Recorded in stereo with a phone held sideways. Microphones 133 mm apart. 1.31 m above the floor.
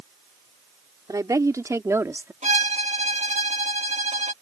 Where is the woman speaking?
25° right (ahead or behind); by 2.3 s 15° right (ahead or behind).